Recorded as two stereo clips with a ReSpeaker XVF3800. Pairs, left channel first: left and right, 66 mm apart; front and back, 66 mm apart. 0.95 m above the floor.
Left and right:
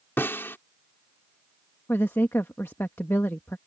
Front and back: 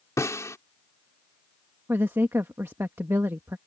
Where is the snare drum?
35° left.